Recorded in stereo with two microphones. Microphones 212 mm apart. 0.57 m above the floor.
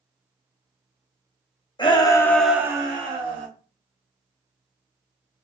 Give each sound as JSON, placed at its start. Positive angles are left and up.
{"t": 1.8, "sound": "a shout", "side_deg": 25, "distance_m": 0.8}